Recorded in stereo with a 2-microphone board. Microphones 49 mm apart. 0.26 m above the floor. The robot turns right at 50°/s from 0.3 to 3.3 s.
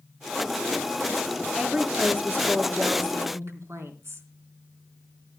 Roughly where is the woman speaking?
Behind.